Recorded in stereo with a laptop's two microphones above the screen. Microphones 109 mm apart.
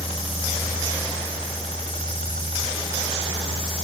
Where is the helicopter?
70° left (ahead or behind); by 3.9 s 65° left (ahead or behind).